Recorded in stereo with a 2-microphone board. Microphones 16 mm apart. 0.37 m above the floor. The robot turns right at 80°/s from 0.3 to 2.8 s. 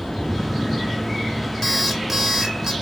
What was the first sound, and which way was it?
An alarm clock, 170° left.